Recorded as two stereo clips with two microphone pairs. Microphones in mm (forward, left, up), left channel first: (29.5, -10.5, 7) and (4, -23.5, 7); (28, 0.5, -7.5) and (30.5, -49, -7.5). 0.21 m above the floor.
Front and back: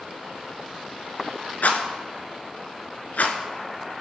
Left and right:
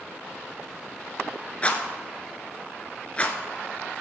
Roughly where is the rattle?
Ahead left.